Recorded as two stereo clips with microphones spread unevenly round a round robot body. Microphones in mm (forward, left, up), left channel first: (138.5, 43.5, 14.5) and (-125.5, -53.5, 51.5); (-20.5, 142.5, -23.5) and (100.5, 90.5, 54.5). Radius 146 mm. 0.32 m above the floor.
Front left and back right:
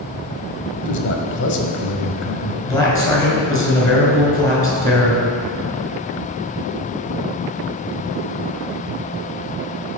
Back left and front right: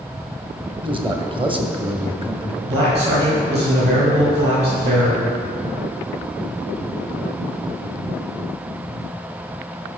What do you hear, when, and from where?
0.8 s a man speaking: 50° left, 1.7 m
2.6 s a man speaking: 55° right, 4.5 m